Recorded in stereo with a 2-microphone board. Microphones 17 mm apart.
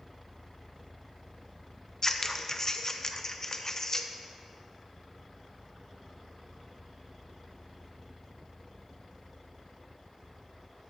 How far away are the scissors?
About 0.6 m.